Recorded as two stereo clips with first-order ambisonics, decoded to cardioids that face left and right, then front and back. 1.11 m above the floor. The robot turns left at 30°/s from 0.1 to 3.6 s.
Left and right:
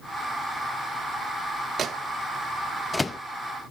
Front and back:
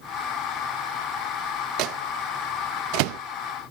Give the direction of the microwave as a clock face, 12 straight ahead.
5 o'clock.